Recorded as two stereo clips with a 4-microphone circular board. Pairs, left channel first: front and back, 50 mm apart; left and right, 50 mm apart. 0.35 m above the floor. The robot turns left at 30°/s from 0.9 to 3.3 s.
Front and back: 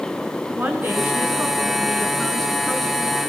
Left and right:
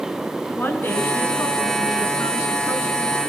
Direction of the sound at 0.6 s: 135° left.